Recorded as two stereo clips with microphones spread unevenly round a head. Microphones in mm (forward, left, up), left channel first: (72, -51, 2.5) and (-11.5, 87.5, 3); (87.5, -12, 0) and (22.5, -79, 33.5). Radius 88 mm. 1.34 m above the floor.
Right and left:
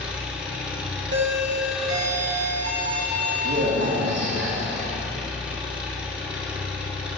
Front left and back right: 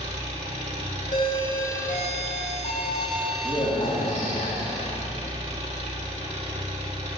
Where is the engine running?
155° right, 2.5 m.